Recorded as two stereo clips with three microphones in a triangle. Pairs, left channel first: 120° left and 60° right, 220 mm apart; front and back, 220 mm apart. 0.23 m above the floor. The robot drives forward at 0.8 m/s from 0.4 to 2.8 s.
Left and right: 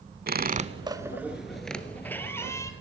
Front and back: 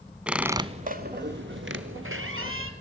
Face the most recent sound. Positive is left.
turn(degrees=-165)